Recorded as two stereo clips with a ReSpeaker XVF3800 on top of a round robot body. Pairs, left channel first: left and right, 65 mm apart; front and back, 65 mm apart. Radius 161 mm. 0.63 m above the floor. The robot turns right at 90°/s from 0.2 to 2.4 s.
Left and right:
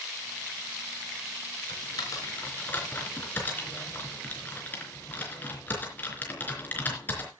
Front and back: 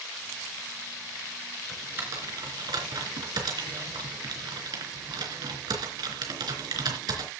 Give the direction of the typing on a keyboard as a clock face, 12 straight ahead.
9 o'clock.